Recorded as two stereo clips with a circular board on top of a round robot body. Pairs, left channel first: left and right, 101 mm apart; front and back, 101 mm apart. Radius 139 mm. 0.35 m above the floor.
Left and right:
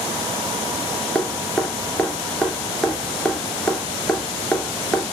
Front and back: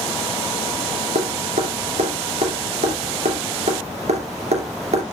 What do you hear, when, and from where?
1.1 s dripping: 175° left, 3 m